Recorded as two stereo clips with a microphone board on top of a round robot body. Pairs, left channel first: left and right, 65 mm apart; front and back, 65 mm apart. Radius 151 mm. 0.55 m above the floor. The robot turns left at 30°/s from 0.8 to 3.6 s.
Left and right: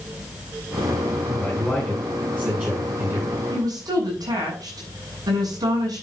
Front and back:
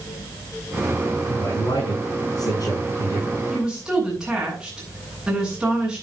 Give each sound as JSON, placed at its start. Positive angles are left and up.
{"t": 1.3, "sound": "a man speaking", "azimuth_deg": 15, "distance_m": 7.5}
{"t": 3.5, "sound": "a woman speaking", "azimuth_deg": -95, "distance_m": 8.0}